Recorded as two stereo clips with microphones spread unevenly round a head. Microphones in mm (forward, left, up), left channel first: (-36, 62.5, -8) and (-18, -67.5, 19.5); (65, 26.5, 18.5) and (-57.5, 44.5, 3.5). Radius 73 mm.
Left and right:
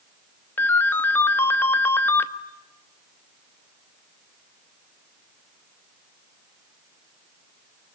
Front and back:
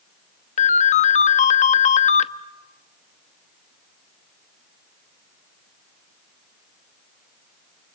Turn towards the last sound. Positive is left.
turn(degrees=20)